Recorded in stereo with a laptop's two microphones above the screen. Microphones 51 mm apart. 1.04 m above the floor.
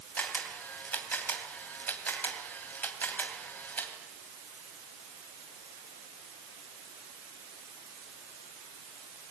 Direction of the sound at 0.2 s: 35° left (ahead or behind).